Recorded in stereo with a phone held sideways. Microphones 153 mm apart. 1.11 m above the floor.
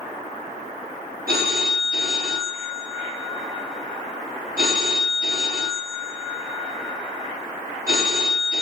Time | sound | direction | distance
1.3 | a phone ringing | 70° right (ahead or behind) | 0.9 m